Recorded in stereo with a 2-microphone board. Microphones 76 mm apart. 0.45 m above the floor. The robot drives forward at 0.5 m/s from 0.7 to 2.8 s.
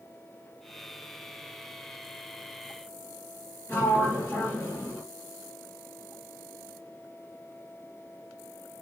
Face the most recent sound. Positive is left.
turn(degrees=30)  # may be behind; listen again after turning